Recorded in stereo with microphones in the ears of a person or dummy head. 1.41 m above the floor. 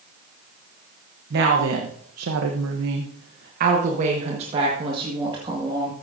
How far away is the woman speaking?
About 1.1 m.